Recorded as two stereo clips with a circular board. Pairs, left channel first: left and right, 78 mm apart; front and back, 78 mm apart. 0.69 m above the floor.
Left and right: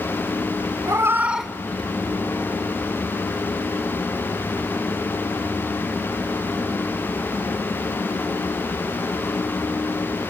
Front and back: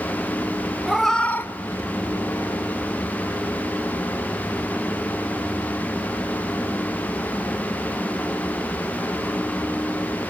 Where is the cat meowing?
95° right, 0.7 m; by 2.6 s 40° left, 1.4 m.